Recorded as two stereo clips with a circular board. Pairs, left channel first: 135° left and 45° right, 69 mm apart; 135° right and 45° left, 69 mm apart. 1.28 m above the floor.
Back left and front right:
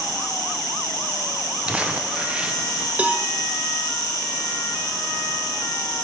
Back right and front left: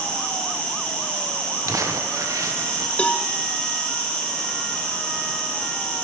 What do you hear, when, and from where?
0.0 s an insect: 150° left, 2.0 m
1.7 s crumpling: 25° left, 0.7 m
3.0 s a cowbell: 90° right, 0.6 m